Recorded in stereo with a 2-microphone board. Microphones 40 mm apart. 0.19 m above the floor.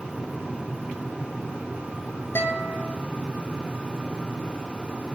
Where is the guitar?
75° left (ahead or behind), 1.5 m.